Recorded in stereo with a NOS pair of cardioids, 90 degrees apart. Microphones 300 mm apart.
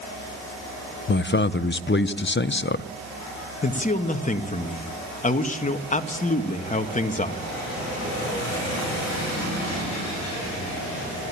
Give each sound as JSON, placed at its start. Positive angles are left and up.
{"t": 1.1, "sound": "a man speaking", "azimuth_deg": 40, "distance_m": 0.9}
{"t": 3.6, "sound": "a man speaking", "azimuth_deg": 25, "distance_m": 2.0}